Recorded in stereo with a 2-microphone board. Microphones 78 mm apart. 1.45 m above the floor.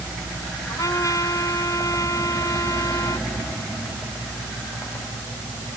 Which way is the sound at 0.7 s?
45° left (ahead or behind).